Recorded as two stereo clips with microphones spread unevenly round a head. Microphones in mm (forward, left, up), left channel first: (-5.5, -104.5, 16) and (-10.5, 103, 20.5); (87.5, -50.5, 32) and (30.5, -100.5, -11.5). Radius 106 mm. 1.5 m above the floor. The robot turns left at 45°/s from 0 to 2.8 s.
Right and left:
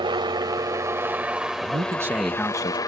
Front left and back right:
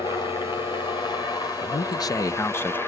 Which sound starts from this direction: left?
A helicopter, at 0.0 s.